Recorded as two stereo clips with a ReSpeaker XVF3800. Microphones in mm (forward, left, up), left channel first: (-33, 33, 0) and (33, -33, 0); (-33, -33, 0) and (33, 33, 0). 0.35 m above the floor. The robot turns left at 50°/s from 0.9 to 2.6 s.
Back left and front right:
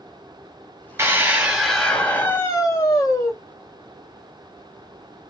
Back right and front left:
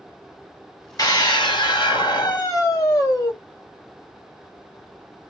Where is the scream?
100° right, 2.5 m; by 3.3 s straight behind, 2.5 m.